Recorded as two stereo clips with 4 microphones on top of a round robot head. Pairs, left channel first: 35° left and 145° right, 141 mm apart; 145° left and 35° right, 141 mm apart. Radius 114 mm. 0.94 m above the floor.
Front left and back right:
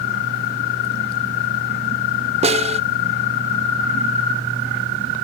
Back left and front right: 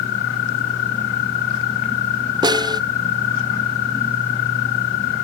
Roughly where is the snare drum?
Right.